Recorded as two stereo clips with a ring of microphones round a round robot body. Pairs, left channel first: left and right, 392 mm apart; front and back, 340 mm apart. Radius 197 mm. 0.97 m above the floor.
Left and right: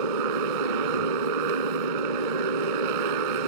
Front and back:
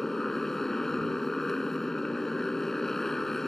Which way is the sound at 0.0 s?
90° right.